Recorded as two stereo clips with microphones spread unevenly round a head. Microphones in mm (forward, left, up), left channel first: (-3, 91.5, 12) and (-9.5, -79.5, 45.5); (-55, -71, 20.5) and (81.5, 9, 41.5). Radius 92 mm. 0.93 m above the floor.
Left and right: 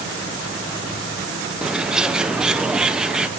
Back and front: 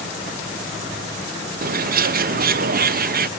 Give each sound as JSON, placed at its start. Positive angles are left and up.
{"t": 1.6, "sound": "a bird", "azimuth_deg": -5, "distance_m": 0.6}